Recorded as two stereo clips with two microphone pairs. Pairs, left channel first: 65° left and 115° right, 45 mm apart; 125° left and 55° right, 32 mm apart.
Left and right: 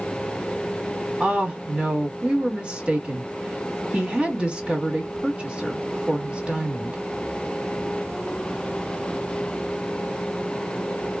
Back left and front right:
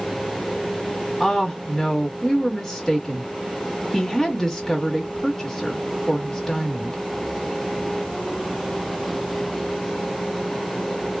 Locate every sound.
1.2 s a woman speaking: 165° right, 1.2 m